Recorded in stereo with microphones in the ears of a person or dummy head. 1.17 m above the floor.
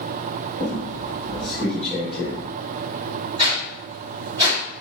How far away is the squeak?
About 1.3 m.